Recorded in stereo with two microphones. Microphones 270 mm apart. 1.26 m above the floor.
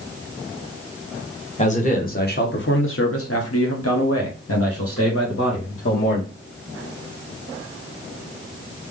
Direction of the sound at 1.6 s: 25° left (ahead or behind).